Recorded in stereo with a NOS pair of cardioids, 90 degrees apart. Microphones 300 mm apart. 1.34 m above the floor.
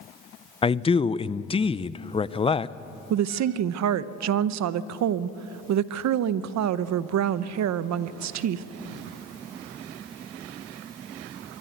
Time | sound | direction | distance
0.6 | a man speaking | 20° left | 0.6 m
3.1 | a woman speaking | 65° right | 0.8 m